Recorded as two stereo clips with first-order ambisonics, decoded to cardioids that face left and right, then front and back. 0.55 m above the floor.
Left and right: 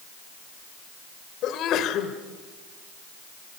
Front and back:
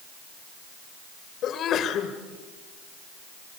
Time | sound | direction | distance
1.4 | a sneeze | 50° left | 2.5 m